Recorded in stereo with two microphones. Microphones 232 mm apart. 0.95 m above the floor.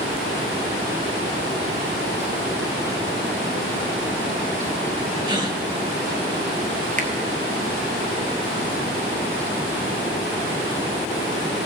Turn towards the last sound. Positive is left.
turn(degrees=-35)  # may be behind; listen again after turning